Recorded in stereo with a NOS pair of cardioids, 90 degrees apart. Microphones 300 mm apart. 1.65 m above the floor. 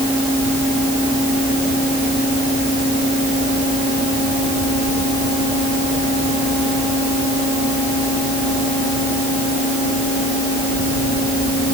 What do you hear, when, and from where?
Only background noise.